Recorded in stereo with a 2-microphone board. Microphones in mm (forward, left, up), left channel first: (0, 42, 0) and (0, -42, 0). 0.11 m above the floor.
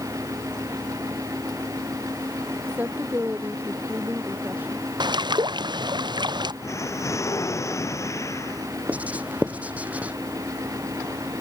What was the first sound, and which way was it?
A woman speaking, 20° right (ahead or behind).